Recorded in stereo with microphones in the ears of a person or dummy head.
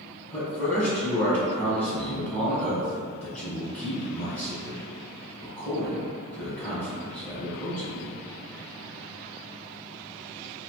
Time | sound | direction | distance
0.3 | a man speaking | 10° left (ahead or behind) | 1.5 m